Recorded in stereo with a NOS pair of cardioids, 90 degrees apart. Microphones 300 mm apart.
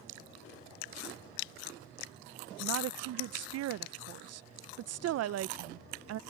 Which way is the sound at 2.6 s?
55° right.